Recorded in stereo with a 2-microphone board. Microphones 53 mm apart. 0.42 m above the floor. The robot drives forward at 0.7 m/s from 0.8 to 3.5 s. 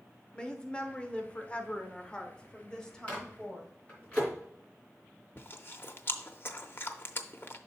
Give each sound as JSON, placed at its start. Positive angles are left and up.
{"t": 0.3, "sound": "a woman speaking", "side_deg": 20, "distance_m": 0.9}
{"t": 3.1, "sound": "a microwave", "side_deg": 25, "distance_m": 3.0}
{"t": 5.4, "sound": "chewing", "side_deg": 45, "distance_m": 0.6}